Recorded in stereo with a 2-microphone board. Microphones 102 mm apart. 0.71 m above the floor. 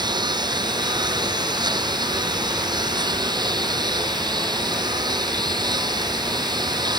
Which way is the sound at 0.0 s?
45° right (ahead or behind).